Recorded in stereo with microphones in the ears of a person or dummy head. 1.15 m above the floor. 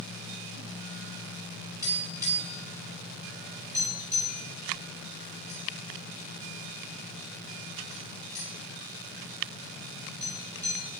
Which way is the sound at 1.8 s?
20° right (ahead or behind).